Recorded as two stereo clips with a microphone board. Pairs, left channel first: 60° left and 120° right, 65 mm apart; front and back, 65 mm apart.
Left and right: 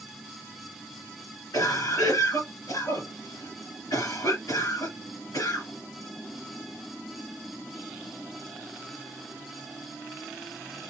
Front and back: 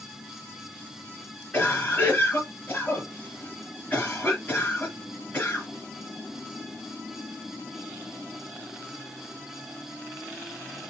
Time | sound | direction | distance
1.5 | a cough | 60° left | 3 m